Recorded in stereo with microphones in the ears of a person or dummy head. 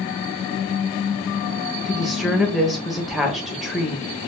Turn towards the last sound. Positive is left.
turn(degrees=0)  # may be behind; listen again after turning